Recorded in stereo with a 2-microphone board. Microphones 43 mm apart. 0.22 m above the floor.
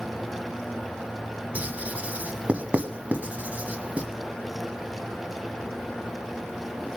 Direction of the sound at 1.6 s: 35° right (ahead or behind).